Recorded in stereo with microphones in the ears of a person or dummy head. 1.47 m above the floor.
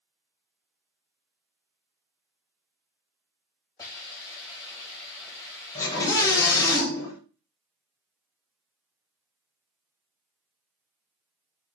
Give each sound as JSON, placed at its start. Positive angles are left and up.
{"t": 3.8, "sound": "a hiss", "side_deg": 20, "distance_m": 5.5}
{"t": 5.8, "sound": "a scream", "side_deg": 15, "distance_m": 4.5}